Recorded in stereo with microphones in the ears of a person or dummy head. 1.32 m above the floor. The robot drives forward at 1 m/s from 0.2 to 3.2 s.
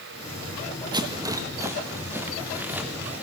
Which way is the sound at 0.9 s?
20° right (ahead or behind).